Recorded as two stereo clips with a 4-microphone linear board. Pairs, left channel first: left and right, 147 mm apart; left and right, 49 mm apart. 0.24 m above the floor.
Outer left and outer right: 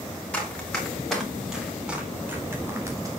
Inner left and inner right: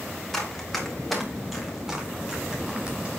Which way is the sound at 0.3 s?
10° left (ahead or behind).